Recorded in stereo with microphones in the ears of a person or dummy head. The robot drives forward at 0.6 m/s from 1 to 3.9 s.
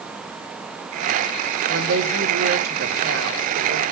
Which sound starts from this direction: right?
A woman speaking, at 1.7 s.